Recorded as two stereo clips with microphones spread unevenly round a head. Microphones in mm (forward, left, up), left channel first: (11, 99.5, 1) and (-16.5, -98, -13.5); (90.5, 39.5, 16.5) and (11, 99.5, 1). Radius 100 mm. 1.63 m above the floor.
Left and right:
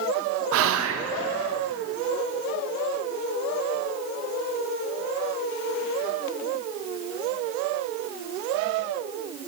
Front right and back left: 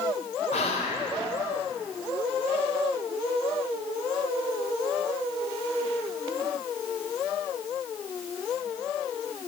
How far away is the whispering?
About 0.5 m.